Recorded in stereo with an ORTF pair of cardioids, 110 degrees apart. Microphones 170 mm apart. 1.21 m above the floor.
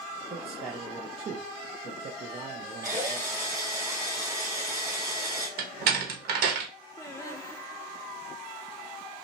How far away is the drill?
About 2 m.